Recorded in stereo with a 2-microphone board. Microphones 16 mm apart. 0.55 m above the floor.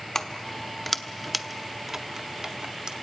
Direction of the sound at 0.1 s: 30° left (ahead or behind).